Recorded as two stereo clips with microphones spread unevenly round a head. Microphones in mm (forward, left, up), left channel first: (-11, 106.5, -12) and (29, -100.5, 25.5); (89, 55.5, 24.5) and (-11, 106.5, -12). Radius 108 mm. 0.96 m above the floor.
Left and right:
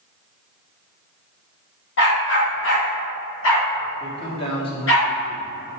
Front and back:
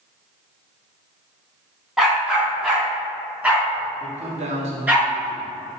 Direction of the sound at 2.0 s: 60° left.